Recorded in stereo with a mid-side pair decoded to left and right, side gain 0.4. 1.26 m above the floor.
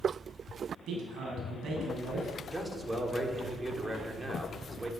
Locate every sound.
0.9 s a man speaking: 70° right, 8 m
2.5 s a man speaking: 20° right, 4 m